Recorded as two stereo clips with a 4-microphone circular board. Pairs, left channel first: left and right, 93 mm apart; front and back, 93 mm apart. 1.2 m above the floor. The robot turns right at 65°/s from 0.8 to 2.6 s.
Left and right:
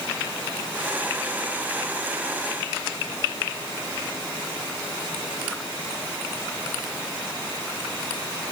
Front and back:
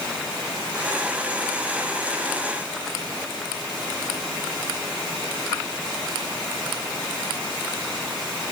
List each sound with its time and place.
Only background noise.